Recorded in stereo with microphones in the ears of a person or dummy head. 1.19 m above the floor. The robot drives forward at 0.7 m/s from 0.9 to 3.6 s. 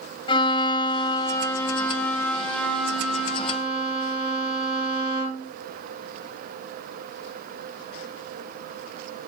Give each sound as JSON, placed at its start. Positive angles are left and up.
{"t": 0.3, "sound": "a violin", "side_deg": 25, "distance_m": 0.5}